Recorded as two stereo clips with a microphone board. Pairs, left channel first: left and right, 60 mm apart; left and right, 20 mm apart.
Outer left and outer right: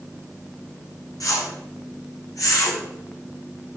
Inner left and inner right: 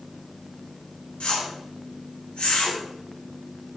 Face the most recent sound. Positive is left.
turn(degrees=75)  # may be behind; listen again after turning